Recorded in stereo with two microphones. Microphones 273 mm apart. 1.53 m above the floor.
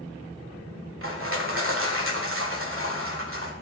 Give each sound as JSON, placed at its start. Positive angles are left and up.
{"t": 1.0, "sound": "crushing", "side_deg": -50, "distance_m": 1.9}